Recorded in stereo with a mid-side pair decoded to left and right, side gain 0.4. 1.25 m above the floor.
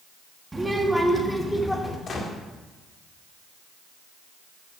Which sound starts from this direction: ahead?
A child speaking, at 0.5 s.